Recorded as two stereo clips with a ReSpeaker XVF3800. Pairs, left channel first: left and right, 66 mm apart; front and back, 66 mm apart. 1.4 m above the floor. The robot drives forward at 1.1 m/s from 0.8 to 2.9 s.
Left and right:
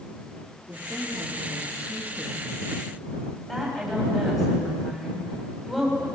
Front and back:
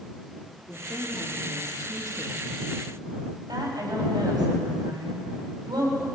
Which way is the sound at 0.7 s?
20° right.